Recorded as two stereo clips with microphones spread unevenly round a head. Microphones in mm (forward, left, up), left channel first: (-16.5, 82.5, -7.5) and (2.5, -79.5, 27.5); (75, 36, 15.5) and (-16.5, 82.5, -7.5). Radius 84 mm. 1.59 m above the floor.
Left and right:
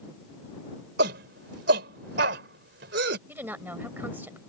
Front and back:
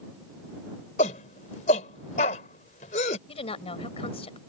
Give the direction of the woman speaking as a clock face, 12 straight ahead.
12 o'clock.